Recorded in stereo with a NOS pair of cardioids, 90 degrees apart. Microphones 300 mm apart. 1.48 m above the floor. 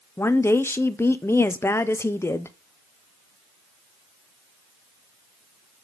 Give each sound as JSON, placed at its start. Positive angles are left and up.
{"t": 0.2, "sound": "a woman speaking", "azimuth_deg": 10, "distance_m": 0.8}